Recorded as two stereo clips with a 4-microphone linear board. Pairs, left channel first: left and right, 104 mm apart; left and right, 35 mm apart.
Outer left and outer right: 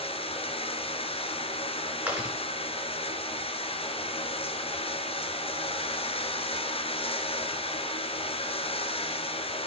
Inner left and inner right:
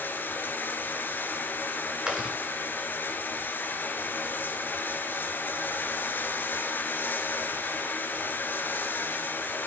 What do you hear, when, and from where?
0.0 s running water: 70° left (ahead or behind), 1.4 m
2.1 s chewing: 15° right (ahead or behind), 5 m